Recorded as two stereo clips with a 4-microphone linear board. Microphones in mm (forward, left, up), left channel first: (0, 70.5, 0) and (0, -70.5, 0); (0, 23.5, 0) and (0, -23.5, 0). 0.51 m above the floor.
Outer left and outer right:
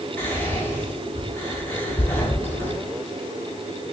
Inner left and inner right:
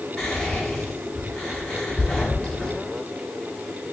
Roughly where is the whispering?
Centre.